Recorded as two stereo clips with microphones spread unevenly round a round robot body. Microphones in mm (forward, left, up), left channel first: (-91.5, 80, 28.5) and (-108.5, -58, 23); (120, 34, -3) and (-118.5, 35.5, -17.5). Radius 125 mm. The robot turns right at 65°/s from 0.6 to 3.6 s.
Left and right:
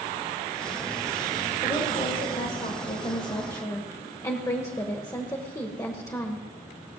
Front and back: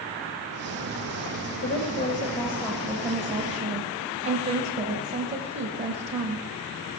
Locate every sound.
1.6 s a woman speaking: 10° left, 1.4 m; by 6.5 s 140° left, 1.4 m